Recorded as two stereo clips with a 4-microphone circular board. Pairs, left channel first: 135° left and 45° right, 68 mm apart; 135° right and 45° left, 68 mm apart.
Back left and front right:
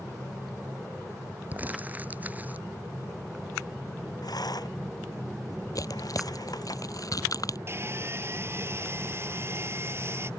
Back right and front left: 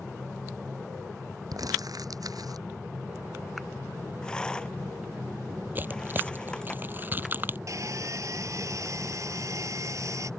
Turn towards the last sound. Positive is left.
turn(degrees=5)